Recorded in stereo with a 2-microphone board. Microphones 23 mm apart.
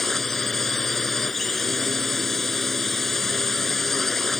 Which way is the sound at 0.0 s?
5° left (ahead or behind).